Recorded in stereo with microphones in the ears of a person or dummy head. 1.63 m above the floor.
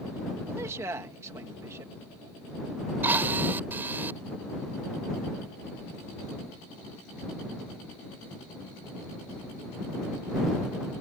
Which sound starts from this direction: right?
A man speaking, at 0.5 s.